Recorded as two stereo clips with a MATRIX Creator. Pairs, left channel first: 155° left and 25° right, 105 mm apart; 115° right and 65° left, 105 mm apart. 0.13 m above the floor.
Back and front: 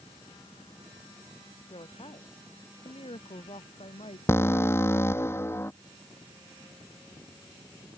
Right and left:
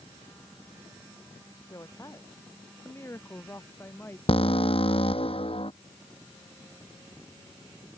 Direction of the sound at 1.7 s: 170° right.